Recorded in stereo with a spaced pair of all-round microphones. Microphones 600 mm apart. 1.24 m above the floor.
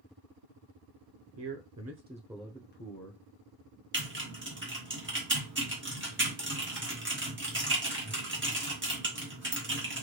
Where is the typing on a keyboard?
20° right (ahead or behind), 1.1 m.